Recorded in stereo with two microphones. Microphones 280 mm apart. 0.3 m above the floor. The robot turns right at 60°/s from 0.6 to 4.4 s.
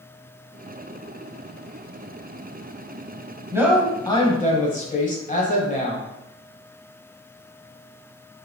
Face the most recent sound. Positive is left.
turn(degrees=35)